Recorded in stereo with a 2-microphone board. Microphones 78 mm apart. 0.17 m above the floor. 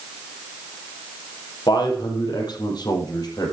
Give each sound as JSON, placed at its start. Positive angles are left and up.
{"t": 1.7, "sound": "a man speaking", "side_deg": 70, "distance_m": 5.5}